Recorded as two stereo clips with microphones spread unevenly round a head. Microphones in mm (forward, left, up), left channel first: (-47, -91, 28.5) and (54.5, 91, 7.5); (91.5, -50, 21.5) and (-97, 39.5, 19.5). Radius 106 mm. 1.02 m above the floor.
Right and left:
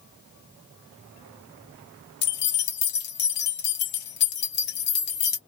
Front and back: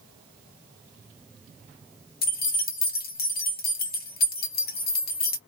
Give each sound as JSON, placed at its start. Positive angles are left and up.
{"t": 2.2, "sound": "keys jangling", "azimuth_deg": -75, "distance_m": 1.1}